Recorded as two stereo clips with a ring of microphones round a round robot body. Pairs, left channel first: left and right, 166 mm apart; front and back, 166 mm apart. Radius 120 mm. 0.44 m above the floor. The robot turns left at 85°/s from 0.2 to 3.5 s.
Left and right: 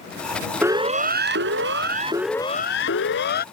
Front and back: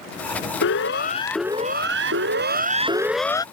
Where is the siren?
10° right; by 3.5 s 65° left.